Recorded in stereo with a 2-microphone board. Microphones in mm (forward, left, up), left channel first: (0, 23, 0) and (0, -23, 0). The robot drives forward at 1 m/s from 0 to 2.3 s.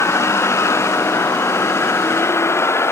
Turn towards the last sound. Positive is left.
turn(degrees=65)  # may be behind; listen again after turning